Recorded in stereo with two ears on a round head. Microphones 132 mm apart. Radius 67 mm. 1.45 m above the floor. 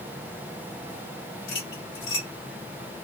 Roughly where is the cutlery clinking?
Left.